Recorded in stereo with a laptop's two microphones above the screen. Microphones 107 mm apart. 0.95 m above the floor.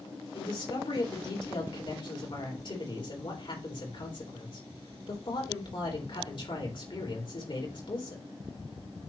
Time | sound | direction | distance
0.3 | a man speaking | 55° left (ahead or behind) | 3.5 m